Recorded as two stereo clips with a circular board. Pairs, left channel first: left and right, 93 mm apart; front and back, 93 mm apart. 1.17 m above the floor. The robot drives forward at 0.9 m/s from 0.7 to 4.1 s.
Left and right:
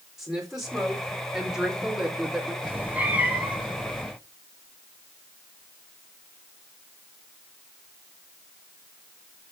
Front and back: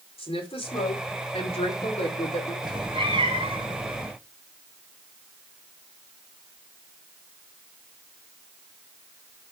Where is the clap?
I don't hear a clap.